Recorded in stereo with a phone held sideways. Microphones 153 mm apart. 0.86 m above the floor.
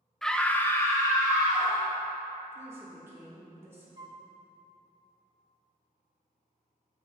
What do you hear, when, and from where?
0.2 s a scream: 5° left (ahead or behind), 0.6 m; by 1.9 s 15° left (ahead or behind), 1.4 m
2.5 s a woman speaking: 15° right (ahead or behind), 2.5 m
4.0 s a flute: 30° right (ahead or behind), 0.6 m